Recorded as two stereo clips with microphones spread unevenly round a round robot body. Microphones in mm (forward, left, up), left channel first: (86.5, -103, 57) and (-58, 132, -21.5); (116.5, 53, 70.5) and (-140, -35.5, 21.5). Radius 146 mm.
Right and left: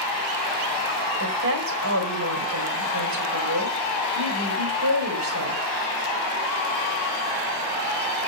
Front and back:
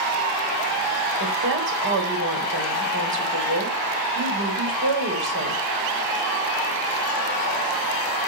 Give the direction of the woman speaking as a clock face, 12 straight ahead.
7 o'clock.